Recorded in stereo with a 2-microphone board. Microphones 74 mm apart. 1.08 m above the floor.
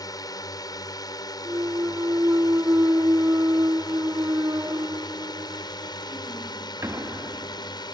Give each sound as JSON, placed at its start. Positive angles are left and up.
{"t": 0.0, "sound": "a drone", "side_deg": 60}
{"t": 1.4, "sound": "a clunk", "side_deg": -40}